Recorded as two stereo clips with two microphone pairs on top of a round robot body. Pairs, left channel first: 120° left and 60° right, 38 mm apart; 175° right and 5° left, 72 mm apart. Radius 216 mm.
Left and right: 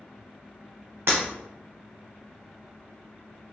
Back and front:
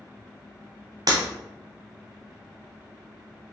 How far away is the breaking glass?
About 0.6 m.